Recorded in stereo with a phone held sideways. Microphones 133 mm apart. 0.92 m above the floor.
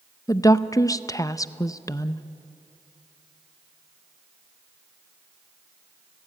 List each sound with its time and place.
0.3 s a woman speaking: 25° left (ahead or behind), 0.6 m